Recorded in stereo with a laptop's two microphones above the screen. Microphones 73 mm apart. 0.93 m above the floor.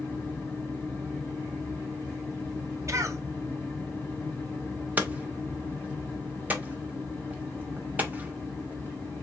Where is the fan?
30° left (ahead or behind), 2 m.